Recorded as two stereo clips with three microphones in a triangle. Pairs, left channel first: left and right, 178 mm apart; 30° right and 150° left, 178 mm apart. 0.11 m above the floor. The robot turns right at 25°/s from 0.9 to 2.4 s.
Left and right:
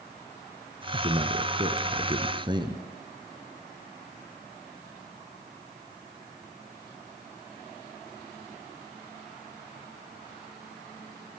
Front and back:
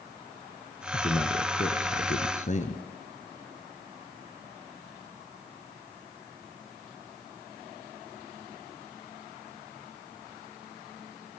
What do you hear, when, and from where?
0.9 s a man speaking: 75° right, 1.9 m; by 2.9 s 40° right, 1.9 m